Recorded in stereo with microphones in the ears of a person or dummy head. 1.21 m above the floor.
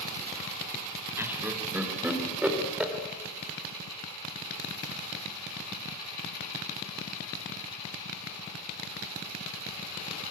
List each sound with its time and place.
1.2 s laughter: 15° right (ahead or behind), 2.5 m; by 2.9 s 5° right (ahead or behind), 3.5 m